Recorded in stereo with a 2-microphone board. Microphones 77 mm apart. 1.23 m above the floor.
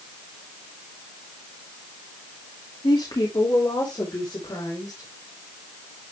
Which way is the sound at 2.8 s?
75° left (ahead or behind).